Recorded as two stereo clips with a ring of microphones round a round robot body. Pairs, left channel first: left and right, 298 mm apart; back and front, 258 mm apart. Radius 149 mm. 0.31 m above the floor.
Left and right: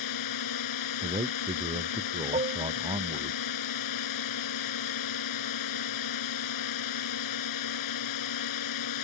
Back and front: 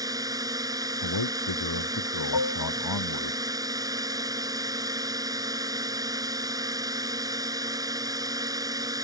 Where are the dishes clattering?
160° right.